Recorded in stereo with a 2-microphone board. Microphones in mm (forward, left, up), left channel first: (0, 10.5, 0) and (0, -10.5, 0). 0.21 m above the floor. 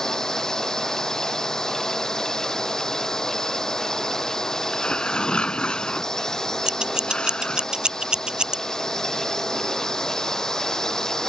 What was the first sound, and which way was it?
A drone, 20° left (ahead or behind).